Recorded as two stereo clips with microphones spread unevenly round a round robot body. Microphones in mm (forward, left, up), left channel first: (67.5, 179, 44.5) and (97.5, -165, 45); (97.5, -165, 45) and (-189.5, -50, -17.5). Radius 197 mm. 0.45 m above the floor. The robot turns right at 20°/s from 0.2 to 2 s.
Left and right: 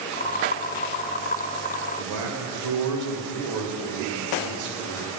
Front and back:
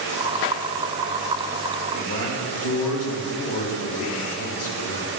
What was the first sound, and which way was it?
A man speaking, 65° right.